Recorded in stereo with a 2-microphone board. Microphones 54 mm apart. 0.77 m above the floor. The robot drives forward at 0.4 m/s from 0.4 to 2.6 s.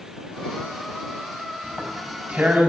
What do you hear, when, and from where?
1.6 s tearing paper: 35° right (ahead or behind), 5 m; by 2.7 s 40° right (ahead or behind), 4.5 m